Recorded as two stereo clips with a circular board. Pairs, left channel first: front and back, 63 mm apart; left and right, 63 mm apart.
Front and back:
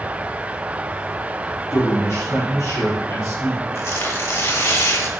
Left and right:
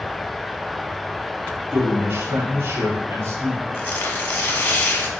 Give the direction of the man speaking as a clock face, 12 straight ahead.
1 o'clock.